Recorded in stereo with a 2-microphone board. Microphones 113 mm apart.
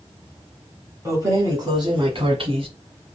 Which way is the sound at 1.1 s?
25° right (ahead or behind).